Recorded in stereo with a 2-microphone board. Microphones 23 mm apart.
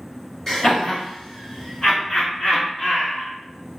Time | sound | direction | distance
0.5 | laughter | 25° left (ahead or behind) | 1.7 m